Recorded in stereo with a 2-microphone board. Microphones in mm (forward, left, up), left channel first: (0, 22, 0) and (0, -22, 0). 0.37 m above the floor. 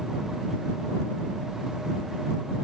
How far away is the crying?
No crying in this recording.